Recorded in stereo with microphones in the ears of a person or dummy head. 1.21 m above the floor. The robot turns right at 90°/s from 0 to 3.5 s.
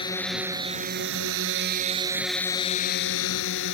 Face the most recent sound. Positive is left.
turn(degrees=105)